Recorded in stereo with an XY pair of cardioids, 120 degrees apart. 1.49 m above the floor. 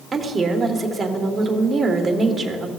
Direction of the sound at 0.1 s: 25° right.